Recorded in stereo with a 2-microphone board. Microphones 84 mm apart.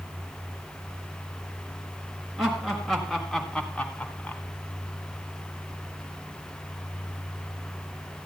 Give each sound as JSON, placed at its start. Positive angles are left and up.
{"t": 2.4, "sound": "laughter", "side_deg": -5, "distance_m": 3.0}